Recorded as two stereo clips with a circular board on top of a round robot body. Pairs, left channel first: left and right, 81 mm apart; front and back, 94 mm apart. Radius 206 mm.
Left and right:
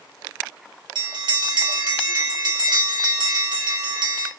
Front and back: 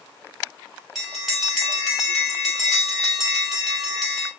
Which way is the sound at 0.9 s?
90° right.